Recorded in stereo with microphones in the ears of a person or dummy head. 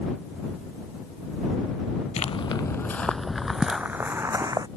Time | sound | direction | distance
2.2 | footsteps | 30° left (ahead or behind) | ?